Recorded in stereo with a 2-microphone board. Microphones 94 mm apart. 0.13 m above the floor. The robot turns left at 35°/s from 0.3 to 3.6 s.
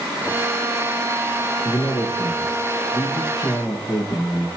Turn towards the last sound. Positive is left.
turn(degrees=70)